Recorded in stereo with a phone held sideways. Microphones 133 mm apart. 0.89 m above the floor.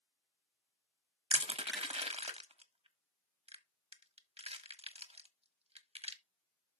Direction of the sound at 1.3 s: 50° right (ahead or behind).